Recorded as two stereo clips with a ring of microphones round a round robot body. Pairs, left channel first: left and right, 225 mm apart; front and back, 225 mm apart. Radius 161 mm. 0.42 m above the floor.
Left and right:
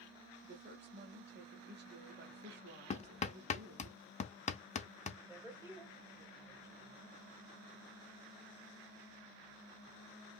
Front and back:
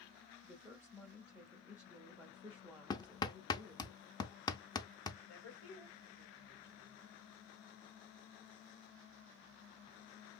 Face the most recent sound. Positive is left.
turn(degrees=-15)